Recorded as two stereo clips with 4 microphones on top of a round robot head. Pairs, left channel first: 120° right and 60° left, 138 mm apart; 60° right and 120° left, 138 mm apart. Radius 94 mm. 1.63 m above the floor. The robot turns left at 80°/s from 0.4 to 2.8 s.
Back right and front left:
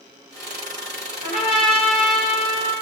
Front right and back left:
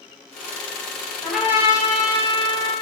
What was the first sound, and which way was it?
A trumpet, 140° right.